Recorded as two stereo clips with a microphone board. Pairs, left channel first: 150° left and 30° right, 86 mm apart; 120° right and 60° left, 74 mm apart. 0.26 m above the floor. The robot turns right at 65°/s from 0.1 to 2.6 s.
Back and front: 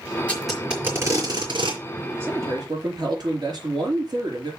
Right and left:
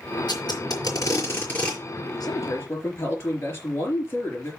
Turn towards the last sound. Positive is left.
turn(degrees=-65)